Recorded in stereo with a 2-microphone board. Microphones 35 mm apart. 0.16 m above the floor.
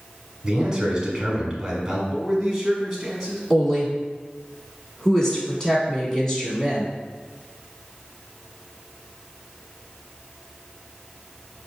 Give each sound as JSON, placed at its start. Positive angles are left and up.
{"t": 0.4, "sound": "a man speaking", "side_deg": -20, "distance_m": 1.0}
{"t": 2.1, "sound": "a man speaking", "side_deg": 0, "distance_m": 1.0}
{"t": 3.5, "sound": "a woman speaking", "side_deg": 15, "distance_m": 1.0}